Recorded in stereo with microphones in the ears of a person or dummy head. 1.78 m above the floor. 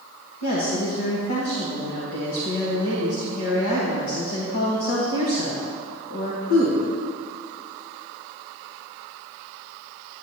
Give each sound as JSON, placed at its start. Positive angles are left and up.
{"t": 0.4, "sound": "a woman speaking", "side_deg": 55, "distance_m": 1.3}